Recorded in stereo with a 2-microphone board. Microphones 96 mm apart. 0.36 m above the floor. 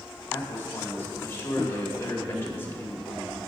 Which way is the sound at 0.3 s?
25° left (ahead or behind).